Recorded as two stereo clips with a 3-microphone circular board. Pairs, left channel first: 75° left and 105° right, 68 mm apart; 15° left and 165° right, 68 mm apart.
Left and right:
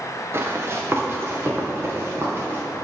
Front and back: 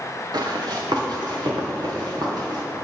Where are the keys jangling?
No keys jangling in this recording.